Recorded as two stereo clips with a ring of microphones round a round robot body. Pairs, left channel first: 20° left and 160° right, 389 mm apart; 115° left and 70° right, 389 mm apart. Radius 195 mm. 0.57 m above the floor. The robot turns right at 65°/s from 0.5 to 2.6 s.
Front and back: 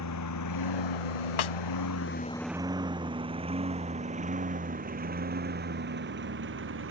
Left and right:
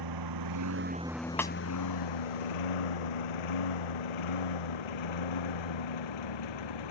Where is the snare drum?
25° left; by 1.5 s 35° left.